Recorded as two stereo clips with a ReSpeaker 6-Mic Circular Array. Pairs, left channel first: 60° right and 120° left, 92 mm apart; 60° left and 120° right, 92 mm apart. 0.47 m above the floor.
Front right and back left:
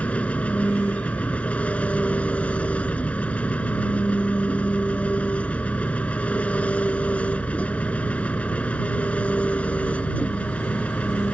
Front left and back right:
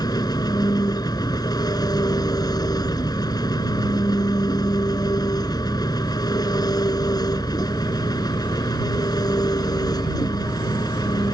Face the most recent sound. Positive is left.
turn(degrees=15)